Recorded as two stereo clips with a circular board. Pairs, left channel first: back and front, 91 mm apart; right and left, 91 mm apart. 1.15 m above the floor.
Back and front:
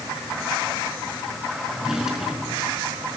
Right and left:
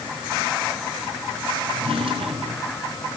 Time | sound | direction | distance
1.7 | a drawer | 85° left | 5 m